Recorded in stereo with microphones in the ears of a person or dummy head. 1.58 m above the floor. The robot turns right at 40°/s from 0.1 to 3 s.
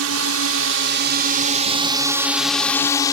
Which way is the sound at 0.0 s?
95° right.